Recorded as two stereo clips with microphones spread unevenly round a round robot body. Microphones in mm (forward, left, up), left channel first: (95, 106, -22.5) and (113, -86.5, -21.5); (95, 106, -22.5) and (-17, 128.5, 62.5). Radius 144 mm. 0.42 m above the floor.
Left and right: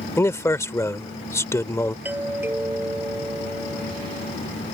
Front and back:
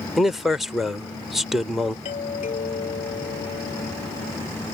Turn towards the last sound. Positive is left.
turn(degrees=-5)